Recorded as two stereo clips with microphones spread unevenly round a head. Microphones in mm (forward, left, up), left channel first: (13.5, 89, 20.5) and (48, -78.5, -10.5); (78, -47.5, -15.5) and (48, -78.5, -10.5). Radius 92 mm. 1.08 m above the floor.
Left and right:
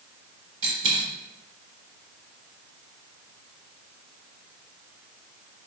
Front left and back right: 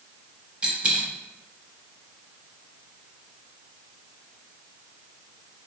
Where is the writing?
No writing in this recording.